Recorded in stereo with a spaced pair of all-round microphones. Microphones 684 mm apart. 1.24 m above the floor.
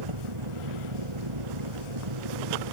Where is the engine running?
45° right (ahead or behind).